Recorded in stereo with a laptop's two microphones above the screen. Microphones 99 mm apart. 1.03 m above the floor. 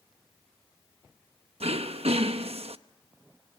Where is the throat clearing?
80° right, 0.9 m.